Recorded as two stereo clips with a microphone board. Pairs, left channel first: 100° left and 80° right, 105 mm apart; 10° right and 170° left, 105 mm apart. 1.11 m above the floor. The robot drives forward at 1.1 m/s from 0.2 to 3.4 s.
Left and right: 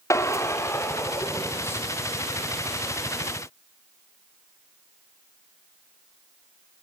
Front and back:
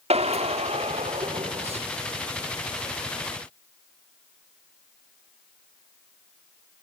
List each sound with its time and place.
0.1 s a drill: 160° left, 2.5 m; by 1.8 s 170° left, 4 m